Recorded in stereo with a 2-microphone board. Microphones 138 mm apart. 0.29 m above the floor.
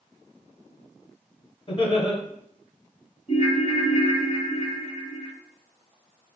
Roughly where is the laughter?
Left.